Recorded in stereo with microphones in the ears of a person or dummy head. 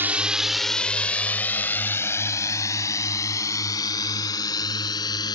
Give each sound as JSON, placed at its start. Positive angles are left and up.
{"t": 0.0, "sound": "a drone", "side_deg": -15}